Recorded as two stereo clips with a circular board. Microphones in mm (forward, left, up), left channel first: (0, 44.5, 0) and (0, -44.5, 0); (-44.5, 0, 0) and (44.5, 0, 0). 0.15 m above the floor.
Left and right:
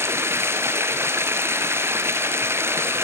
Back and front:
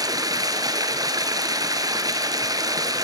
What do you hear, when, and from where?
0.0 s running water: 35° right, 2.5 m